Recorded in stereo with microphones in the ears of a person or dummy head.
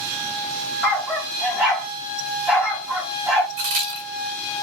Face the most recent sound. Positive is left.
turn(degrees=-35)  # may be behind; listen again after turning